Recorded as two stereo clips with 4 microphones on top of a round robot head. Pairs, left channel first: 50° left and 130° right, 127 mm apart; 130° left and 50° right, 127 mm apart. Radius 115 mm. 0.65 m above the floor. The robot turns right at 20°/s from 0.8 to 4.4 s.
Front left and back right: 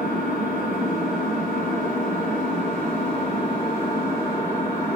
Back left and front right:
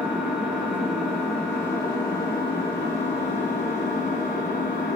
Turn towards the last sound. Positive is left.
turn(degrees=120)